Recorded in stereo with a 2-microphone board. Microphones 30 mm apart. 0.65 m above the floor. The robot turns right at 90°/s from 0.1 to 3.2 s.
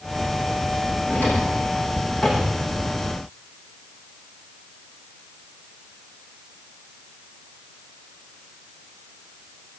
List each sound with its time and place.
1.1 s a drawer: 80° left, 9 m; by 2.6 s 35° right (ahead or behind), 9 m